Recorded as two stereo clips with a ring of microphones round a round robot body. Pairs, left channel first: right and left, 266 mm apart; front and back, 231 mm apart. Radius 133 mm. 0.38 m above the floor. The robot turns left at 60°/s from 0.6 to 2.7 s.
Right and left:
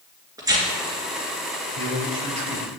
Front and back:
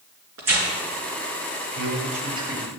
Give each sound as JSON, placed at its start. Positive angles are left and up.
{"t": 0.4, "sound": "tearing paper", "azimuth_deg": 165, "distance_m": 2.5}
{"t": 1.8, "sound": "a man speaking", "azimuth_deg": 150, "distance_m": 2.5}